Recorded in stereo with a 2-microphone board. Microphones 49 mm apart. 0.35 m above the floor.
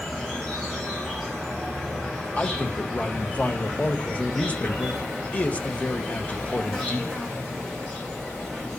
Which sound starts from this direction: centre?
An insect, at 0.0 s.